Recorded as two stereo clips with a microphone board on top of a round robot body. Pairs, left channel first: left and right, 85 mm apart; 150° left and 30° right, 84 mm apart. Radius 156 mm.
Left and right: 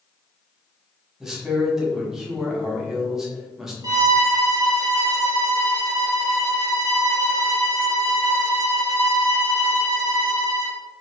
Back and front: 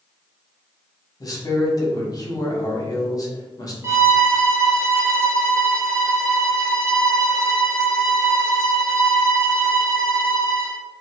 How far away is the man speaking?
About 1.2 m.